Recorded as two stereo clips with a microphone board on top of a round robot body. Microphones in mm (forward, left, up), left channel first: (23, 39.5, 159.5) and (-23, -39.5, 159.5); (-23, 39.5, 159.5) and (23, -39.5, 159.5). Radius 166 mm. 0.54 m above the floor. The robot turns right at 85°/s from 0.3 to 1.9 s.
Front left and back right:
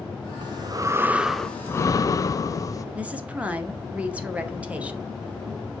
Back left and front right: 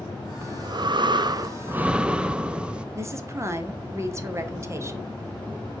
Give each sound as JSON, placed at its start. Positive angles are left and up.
{"t": 0.4, "sound": "breathing", "azimuth_deg": -110, "distance_m": 0.6}
{"t": 3.0, "sound": "a woman speaking", "azimuth_deg": -60, "distance_m": 1.3}